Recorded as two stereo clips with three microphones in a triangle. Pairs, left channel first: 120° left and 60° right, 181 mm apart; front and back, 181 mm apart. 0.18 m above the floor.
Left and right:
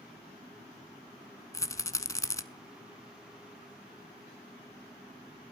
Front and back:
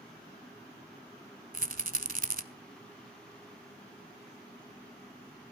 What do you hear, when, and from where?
1.5 s a rattle: 170° right, 0.8 m